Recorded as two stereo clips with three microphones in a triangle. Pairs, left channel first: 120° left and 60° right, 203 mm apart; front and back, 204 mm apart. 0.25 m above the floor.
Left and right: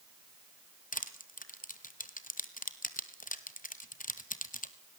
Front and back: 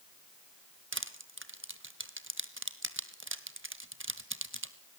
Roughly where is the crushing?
Behind.